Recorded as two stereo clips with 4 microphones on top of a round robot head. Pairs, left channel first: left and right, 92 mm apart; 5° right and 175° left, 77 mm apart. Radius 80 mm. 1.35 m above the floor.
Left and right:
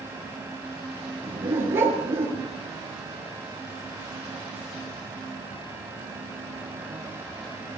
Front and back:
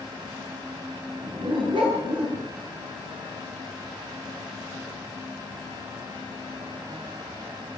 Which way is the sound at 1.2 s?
155° right.